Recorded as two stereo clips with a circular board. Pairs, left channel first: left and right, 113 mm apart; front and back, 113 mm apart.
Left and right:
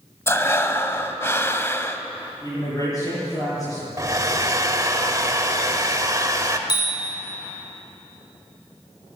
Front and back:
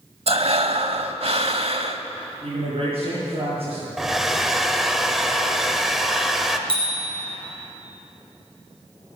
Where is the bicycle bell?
140° left, 4 m.